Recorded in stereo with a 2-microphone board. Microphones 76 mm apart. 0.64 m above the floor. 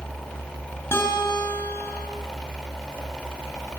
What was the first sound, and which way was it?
A guitar, 30° left (ahead or behind).